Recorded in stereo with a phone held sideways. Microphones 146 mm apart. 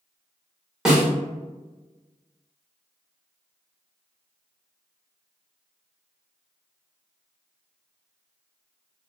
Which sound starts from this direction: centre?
A snare drum, at 0.8 s.